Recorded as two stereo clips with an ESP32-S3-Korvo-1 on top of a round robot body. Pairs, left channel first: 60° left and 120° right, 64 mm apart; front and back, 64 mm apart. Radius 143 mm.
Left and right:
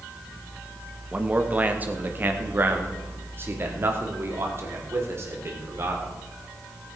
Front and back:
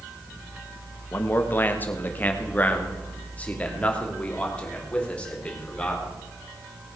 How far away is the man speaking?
About 1.5 m.